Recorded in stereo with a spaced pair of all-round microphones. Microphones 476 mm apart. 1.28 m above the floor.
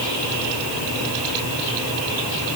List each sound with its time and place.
Only background noise.